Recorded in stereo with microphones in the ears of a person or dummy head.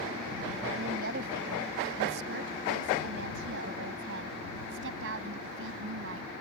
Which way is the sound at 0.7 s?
50° right (ahead or behind).